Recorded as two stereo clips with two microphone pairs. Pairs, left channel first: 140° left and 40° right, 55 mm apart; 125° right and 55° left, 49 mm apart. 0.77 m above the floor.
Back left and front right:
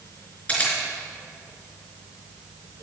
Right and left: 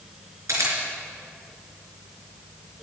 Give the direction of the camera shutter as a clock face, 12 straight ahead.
10 o'clock.